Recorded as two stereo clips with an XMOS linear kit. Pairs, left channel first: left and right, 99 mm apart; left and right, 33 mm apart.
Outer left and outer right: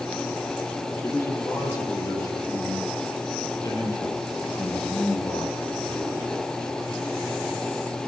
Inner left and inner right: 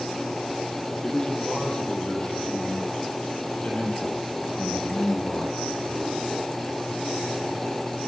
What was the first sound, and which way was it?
A man speaking, 30° left (ahead or behind).